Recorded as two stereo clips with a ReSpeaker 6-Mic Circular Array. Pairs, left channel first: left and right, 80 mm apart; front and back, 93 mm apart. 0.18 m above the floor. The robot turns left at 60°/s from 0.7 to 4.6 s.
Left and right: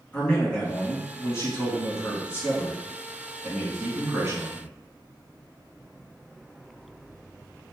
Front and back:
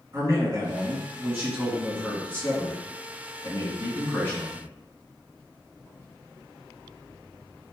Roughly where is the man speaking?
Behind left.